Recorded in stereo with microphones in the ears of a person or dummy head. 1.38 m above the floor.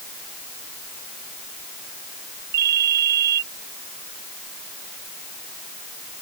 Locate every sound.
2.5 s a ringtone: 60° right (ahead or behind)